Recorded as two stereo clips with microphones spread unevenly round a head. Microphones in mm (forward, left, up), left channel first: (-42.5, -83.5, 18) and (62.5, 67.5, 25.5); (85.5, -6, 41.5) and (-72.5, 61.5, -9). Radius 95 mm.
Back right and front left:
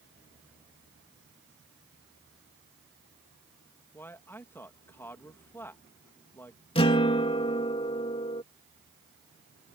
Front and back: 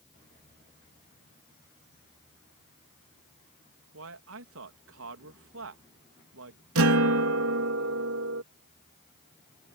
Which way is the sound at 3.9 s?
155° left.